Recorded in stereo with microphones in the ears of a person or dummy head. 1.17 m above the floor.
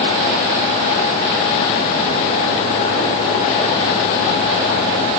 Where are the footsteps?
No footsteps in this recording.